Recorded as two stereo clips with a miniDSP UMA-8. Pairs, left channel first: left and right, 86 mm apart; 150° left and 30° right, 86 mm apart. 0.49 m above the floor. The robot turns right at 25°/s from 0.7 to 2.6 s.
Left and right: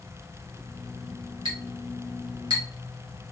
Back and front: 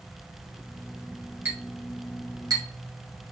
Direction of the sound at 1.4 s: 90° right.